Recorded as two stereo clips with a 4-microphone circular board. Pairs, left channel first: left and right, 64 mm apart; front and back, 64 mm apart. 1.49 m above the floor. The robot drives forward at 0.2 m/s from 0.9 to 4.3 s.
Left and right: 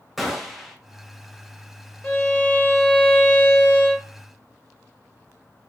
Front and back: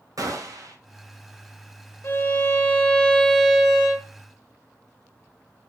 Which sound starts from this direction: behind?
A gunshot, at 0.2 s.